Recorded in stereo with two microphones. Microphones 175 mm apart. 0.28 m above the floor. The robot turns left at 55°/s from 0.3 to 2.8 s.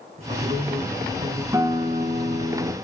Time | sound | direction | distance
0.2 | a man speaking | 40° right | 3 m
1.5 | a guitar | 20° right | 1.9 m